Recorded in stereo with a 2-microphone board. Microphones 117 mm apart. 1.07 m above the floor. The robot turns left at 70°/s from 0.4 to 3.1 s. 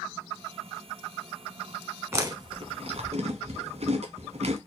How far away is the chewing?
About 1.0 m.